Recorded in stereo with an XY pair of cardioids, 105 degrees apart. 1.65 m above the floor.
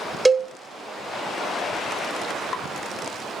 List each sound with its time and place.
0.2 s a cowbell: 15° right, 0.6 m